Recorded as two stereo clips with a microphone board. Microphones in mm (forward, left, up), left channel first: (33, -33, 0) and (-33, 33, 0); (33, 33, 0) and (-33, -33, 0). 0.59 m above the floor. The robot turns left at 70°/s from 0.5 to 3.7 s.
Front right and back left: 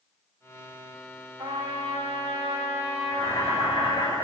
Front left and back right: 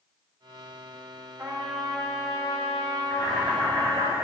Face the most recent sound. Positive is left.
turn(degrees=-75)